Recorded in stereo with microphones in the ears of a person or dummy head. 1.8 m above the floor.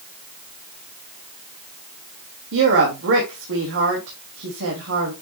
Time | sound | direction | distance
2.5 | a woman speaking | 75° right (ahead or behind) | 2.5 m